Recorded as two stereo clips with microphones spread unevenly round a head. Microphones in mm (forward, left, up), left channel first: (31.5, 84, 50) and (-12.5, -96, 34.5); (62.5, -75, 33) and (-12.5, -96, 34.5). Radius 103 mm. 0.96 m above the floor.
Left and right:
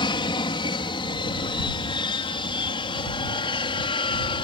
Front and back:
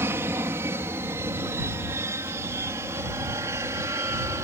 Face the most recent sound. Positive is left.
turn(degrees=140)